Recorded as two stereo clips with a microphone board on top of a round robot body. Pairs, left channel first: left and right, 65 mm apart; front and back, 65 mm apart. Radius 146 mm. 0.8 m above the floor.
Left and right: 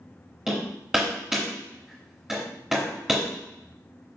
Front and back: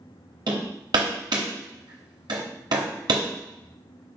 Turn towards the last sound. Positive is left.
turn(degrees=-175)